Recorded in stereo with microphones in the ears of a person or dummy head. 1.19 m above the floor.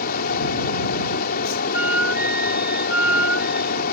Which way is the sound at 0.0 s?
50° left (ahead or behind).